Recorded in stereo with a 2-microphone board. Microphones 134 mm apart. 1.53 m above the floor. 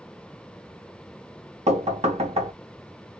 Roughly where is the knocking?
Right.